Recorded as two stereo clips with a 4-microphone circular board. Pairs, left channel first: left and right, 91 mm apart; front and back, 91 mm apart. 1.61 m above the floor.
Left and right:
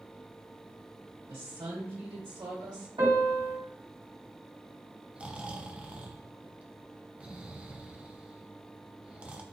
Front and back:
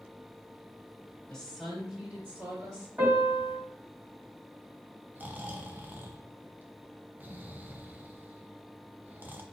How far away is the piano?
About 2.5 m.